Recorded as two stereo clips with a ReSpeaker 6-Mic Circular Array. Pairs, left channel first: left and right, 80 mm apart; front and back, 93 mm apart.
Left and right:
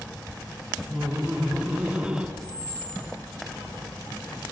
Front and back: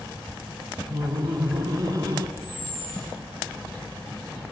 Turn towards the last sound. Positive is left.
turn(degrees=115)